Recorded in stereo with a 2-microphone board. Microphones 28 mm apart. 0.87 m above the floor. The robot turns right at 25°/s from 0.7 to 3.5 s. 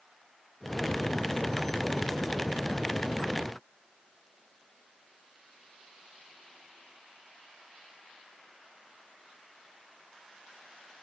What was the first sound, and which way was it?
Only background noise.